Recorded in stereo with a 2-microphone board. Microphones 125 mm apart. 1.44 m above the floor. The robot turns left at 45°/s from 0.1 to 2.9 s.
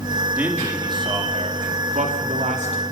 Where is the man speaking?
10° right, 3.5 m; by 2.8 s 120° right, 3.5 m.